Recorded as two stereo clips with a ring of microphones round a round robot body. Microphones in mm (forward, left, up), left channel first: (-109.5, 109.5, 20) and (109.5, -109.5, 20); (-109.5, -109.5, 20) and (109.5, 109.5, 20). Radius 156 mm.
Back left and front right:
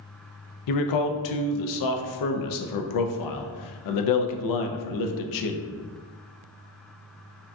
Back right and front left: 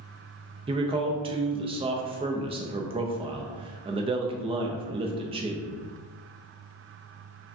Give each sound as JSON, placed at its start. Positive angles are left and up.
{"t": 0.7, "sound": "a man speaking", "azimuth_deg": 120, "distance_m": 0.5}